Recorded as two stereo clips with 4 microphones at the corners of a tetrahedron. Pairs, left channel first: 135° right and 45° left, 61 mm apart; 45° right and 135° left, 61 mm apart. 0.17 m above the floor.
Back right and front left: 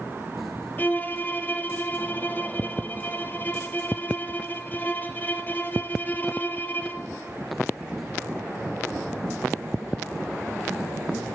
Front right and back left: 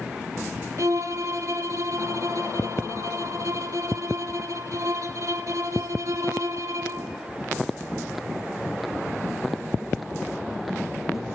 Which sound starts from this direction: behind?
A violin, at 0.8 s.